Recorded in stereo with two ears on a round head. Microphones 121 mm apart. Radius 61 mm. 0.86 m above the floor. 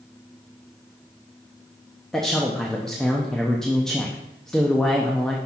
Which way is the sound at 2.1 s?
5° left (ahead or behind).